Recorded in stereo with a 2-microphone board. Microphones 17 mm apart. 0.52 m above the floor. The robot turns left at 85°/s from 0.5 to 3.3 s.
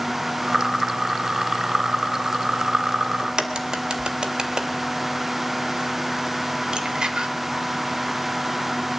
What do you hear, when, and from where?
3.2 s a crack: 55° right (ahead or behind), 2 m; by 7.3 s 50° right (ahead or behind), 2 m